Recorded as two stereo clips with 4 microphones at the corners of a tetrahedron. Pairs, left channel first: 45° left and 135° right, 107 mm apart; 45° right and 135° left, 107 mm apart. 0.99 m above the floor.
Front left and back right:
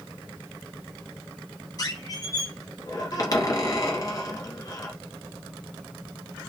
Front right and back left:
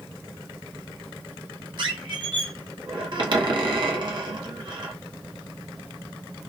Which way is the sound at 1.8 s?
95° left.